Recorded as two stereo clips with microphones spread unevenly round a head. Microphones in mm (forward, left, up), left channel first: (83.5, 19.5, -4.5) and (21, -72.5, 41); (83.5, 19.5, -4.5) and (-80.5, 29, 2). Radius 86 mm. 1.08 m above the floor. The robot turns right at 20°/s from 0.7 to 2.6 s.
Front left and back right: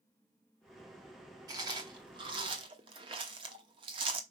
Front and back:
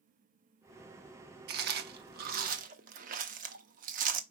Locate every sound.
1.5 s chewing: 170° right, 0.8 m; by 4.2 s 150° right, 0.8 m